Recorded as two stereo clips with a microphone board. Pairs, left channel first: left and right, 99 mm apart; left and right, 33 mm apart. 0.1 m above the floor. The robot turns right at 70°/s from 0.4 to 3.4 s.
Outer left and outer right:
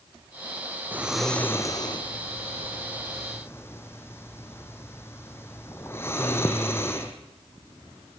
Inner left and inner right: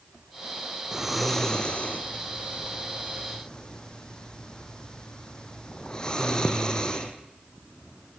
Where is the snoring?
20° right (ahead or behind), 2.5 m; by 7.1 s 25° left (ahead or behind), 2.5 m.